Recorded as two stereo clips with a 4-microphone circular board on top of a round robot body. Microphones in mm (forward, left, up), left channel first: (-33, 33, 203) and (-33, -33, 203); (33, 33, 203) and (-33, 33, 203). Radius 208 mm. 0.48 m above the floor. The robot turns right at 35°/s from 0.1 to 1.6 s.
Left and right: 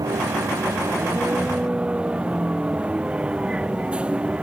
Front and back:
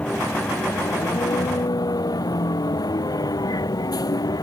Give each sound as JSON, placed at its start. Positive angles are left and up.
{"t": 0.0, "sound": "a vehicle", "azimuth_deg": -70}